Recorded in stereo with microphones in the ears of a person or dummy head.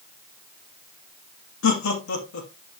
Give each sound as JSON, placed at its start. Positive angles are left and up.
{"t": 1.6, "sound": "laughter", "side_deg": 70, "distance_m": 2.5}